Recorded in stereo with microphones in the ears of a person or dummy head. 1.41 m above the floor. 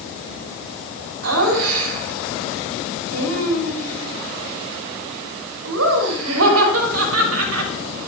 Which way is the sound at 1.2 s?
90° right.